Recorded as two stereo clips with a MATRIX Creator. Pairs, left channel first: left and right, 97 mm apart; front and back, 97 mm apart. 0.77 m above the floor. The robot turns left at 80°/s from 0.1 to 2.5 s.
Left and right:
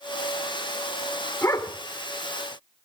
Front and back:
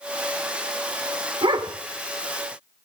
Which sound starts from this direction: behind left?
A dog barking, at 1.4 s.